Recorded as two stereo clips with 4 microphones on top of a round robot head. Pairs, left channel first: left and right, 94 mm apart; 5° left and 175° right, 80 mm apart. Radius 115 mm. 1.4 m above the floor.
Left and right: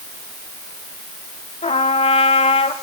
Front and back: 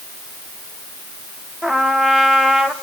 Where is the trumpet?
95° left, 2 m.